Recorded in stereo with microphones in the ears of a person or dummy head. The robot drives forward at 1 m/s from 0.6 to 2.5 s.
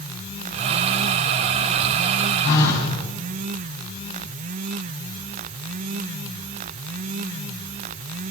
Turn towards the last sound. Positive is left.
turn(degrees=80)